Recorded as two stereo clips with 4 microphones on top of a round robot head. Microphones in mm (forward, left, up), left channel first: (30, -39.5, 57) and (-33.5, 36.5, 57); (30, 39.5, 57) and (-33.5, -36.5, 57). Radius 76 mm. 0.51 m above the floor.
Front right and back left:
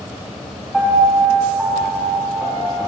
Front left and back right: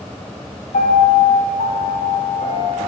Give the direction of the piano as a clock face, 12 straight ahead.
10 o'clock.